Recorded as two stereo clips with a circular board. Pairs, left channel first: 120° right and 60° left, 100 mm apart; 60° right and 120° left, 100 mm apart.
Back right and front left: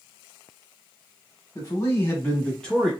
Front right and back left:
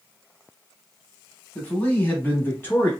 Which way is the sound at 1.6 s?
125° right.